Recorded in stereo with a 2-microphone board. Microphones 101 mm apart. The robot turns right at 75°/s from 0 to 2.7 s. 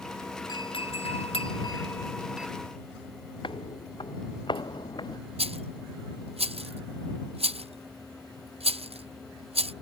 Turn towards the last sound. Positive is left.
turn(degrees=-80)